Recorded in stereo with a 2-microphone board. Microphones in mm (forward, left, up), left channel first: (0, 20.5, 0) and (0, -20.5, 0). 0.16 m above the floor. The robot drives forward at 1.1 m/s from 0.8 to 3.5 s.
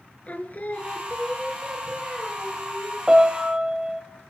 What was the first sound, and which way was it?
Singing, 45° left (ahead or behind).